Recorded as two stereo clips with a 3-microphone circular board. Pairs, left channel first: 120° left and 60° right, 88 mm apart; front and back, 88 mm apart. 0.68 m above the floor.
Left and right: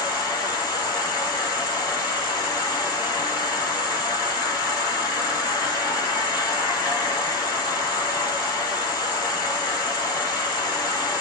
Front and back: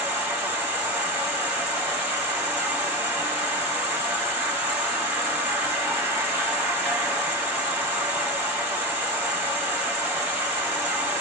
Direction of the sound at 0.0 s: 120° left.